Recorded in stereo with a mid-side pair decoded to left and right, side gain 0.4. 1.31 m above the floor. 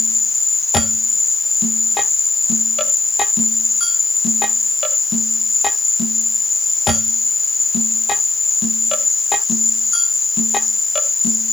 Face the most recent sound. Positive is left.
turn(degrees=30)